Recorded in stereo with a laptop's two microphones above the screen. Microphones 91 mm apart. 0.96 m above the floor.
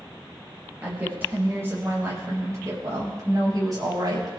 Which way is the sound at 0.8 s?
20° right (ahead or behind).